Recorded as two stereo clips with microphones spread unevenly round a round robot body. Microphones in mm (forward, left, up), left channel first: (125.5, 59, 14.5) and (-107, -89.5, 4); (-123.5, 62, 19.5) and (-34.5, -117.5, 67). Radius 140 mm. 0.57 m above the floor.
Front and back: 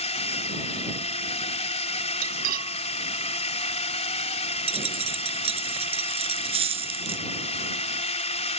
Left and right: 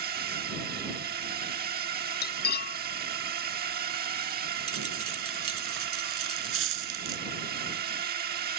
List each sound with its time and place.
0.0 s a drone: 25° right
2.2 s cutlery clinking: 155° left
4.7 s a dropped coin: 75° right